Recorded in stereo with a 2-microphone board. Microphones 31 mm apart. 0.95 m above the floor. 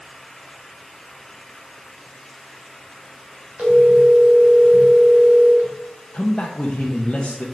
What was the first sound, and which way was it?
A phone ringing, 50° right (ahead or behind).